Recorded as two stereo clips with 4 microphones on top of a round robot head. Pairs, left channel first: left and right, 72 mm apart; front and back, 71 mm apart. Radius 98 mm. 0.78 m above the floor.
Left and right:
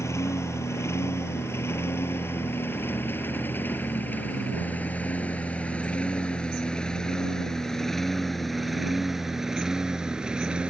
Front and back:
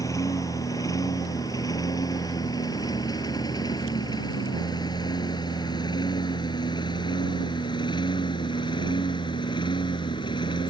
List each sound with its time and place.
0.0 s a lawn mower: 40° left; by 10.7 s 10° right